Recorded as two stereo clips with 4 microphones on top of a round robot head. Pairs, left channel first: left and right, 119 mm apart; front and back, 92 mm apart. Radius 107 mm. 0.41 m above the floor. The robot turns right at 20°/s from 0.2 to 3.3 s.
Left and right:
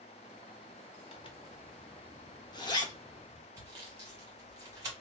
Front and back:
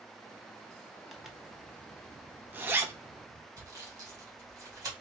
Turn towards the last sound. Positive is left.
turn(degrees=-145)